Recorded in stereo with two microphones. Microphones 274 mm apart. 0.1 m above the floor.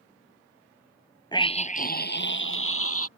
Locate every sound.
1.3 s a scream: 15° left (ahead or behind); by 3.1 s 55° left (ahead or behind)